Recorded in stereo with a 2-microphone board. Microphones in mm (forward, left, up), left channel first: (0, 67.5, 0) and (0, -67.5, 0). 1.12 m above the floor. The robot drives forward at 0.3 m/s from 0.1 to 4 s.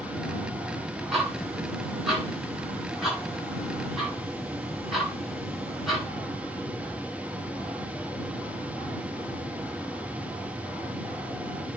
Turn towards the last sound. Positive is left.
turn(degrees=0)  # may be behind; listen again after turning